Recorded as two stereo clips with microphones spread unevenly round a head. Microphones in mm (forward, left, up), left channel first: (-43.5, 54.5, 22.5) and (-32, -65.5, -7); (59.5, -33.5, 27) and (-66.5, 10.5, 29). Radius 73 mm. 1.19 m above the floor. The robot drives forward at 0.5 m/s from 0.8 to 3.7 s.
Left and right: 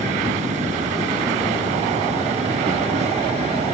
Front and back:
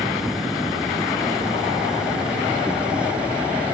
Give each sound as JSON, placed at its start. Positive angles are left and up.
{"t": 0.0, "sound": "an insect", "azimuth_deg": -115}